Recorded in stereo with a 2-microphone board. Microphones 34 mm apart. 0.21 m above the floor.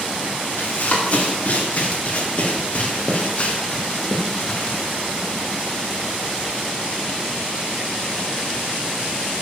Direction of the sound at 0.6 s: 50° left (ahead or behind).